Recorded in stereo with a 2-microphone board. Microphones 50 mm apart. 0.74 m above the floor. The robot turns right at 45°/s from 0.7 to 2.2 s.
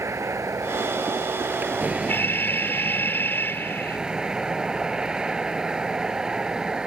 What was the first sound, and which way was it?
A vehicle, 85° right.